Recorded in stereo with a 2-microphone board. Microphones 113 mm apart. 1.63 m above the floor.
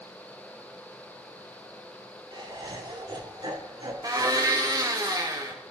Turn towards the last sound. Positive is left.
turn(degrees=-30)  # may be behind; listen again after turning